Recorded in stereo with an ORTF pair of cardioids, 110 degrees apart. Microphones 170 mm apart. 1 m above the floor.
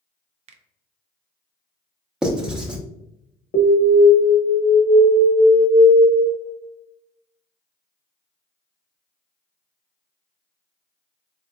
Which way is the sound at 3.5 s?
55° left.